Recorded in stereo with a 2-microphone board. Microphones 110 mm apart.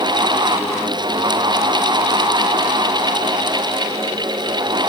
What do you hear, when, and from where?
Only background noise.